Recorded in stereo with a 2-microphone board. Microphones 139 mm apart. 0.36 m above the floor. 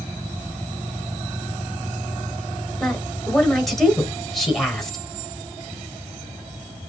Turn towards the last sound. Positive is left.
turn(degrees=0)  # may be behind; listen again after turning